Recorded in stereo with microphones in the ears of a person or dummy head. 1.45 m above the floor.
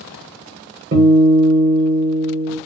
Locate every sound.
0.9 s a guitar: 50° right (ahead or behind), 0.9 m